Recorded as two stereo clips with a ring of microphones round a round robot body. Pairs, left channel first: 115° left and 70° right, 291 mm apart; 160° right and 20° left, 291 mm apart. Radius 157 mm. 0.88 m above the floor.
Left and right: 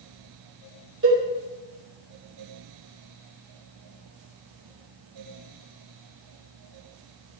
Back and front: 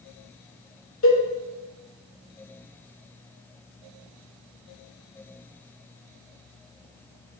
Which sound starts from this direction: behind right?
A cowbell, at 1.0 s.